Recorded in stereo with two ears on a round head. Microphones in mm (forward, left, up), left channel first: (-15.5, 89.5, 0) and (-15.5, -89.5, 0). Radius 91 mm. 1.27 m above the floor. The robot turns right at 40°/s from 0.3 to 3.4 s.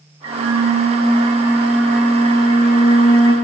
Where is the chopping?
I don't hear chopping.